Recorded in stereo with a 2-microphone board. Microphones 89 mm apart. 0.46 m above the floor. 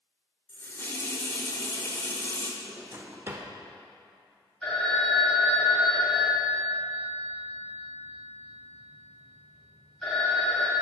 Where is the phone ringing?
10° left (ahead or behind), 2 m.